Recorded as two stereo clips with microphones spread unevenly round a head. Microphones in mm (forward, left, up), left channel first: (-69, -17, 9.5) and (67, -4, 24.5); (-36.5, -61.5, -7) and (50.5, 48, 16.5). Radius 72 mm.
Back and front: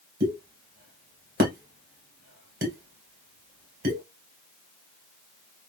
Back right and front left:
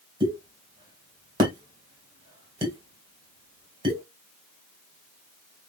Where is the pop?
5° right, 2 m.